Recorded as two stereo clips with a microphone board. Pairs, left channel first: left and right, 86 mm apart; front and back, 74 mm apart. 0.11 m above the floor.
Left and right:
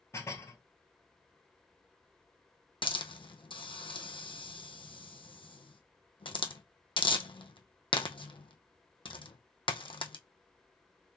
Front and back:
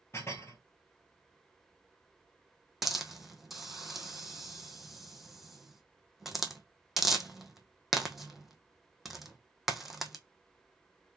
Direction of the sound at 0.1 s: 40° left.